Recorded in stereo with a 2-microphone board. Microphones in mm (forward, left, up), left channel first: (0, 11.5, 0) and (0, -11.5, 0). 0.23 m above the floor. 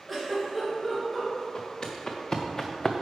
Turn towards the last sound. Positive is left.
turn(degrees=5)  # may be behind; listen again after turning